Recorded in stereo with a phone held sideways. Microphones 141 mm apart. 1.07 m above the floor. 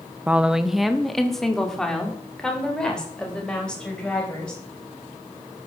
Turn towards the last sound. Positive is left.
turn(degrees=5)  # may be behind; listen again after turning